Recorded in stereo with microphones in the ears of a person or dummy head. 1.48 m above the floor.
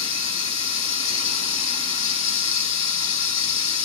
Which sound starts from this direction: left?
Running water, at 0.0 s.